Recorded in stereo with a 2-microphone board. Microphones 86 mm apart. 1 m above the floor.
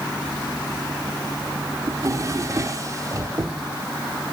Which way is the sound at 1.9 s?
40° right (ahead or behind).